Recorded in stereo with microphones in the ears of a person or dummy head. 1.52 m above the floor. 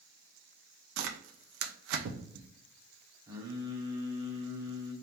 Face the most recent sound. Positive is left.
turn(degrees=-15)  # may be behind; listen again after turning